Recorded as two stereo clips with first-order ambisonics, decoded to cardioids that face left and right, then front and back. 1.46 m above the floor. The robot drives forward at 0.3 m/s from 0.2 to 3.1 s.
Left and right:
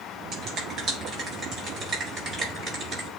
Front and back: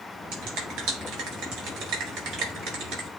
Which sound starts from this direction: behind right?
A finger snap, at 0.3 s.